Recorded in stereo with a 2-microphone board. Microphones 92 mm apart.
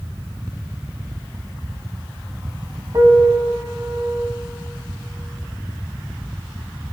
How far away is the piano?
About 1.0 m.